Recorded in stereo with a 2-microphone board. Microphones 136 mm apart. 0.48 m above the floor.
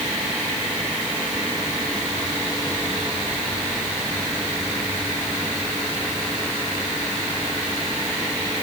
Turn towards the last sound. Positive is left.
No sound to turn to.